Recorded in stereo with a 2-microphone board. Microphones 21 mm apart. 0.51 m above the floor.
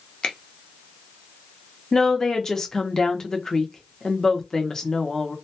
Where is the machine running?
No machine running in this recording.